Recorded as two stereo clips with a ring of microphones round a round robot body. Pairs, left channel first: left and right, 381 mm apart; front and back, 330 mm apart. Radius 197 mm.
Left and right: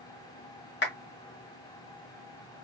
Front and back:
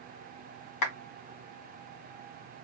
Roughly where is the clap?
Ahead left.